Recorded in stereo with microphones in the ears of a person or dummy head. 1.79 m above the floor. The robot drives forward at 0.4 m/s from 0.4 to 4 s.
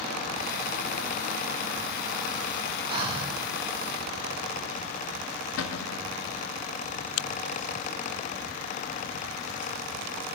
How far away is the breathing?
About 1.5 m.